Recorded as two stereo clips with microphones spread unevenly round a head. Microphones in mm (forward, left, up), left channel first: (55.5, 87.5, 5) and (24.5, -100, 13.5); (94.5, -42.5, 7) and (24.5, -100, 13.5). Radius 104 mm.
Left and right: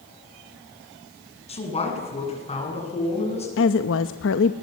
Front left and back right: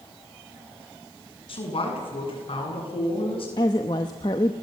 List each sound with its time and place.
1.5 s a man speaking: 20° left, 8.5 m; by 3.5 s 25° left, 10 m
3.6 s a woman speaking: 95° left, 0.9 m